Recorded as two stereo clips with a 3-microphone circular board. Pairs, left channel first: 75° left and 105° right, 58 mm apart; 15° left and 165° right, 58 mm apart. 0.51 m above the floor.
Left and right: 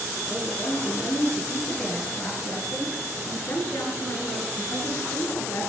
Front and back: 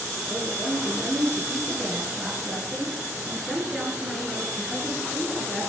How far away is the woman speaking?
About 6.5 m.